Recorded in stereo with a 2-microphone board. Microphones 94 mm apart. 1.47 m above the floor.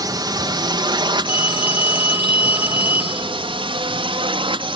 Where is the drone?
45° right (ahead or behind); by 4.8 s 65° right (ahead or behind).